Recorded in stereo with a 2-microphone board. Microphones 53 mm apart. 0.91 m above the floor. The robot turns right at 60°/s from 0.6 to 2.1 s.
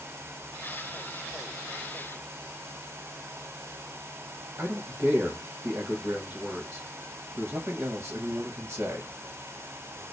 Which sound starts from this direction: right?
A man speaking, at 4.6 s.